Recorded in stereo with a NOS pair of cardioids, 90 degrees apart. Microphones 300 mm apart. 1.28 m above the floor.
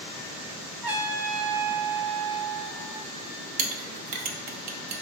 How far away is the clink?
About 0.5 m.